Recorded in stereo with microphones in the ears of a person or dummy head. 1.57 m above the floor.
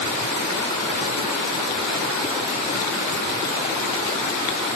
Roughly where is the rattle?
No rattle in this recording.